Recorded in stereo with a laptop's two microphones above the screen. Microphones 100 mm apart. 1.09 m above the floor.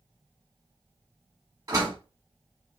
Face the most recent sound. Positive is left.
turn(degrees=-40)  # may be behind; listen again after turning